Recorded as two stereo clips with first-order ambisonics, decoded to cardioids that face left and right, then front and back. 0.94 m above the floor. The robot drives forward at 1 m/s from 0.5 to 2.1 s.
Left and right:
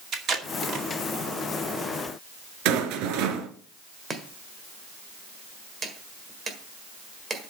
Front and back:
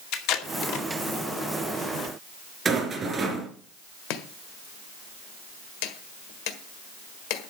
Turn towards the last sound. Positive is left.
turn(degrees=-15)